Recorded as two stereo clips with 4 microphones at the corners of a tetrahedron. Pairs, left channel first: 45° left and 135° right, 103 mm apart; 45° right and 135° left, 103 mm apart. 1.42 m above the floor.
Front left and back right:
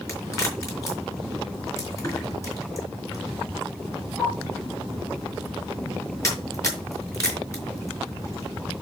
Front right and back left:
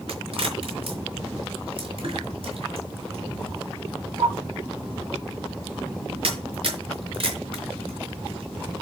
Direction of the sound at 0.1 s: 105° left.